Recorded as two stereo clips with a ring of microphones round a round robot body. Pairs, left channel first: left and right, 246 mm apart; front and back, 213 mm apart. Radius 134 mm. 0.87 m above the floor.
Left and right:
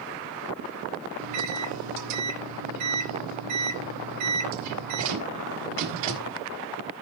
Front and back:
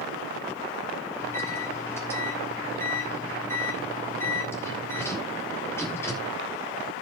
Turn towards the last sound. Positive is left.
turn(degrees=-80)